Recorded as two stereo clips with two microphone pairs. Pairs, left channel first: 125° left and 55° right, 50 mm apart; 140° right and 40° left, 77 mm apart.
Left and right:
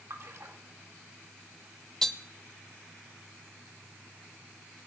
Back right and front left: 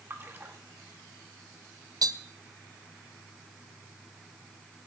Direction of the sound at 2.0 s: 40° left.